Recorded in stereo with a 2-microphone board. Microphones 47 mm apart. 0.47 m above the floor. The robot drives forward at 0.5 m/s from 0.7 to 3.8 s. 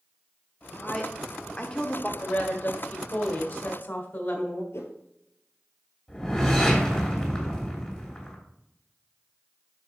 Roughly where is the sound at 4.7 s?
Left.